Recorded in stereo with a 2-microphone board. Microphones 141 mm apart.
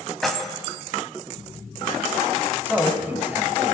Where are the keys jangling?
Centre (ahead or behind), 1.0 m.